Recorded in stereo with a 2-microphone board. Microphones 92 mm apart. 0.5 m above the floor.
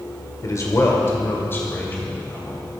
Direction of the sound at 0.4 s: 40° left (ahead or behind).